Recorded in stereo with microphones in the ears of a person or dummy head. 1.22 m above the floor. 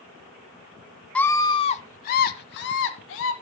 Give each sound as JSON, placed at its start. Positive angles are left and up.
{"t": 1.1, "sound": "a scream", "side_deg": 0, "distance_m": 0.7}